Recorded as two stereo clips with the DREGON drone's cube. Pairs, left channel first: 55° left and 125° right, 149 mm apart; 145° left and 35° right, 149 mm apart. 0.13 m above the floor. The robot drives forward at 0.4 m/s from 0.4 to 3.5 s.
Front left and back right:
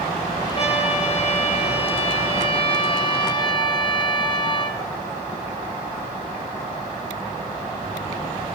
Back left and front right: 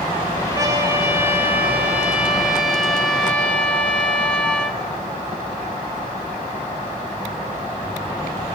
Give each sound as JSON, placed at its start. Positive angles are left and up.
{"t": 0.6, "sound": "a trumpet", "azimuth_deg": 30, "distance_m": 2.0}